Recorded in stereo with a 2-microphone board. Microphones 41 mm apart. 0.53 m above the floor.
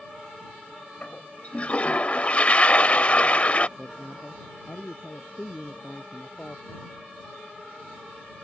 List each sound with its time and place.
1.0 s a toilet flushing: 40° left (ahead or behind)
3.8 s a man speaking: 30° left (ahead or behind)